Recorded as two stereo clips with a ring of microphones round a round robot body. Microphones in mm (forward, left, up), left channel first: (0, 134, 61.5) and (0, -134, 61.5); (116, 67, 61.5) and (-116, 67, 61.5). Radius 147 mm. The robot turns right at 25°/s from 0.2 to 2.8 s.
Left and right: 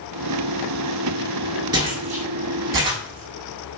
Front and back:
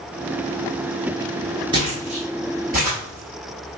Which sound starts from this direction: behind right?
Footsteps, at 1.7 s.